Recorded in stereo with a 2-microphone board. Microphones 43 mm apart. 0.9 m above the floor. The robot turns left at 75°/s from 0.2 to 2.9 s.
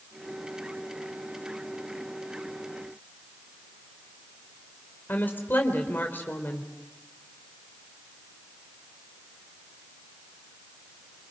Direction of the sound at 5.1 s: 45° left (ahead or behind).